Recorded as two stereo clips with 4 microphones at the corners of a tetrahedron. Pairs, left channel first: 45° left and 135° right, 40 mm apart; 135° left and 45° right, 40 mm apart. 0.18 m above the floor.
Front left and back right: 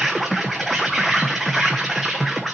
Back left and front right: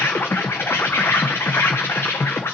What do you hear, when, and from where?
0.0 s an insect: 130° left, 1.2 m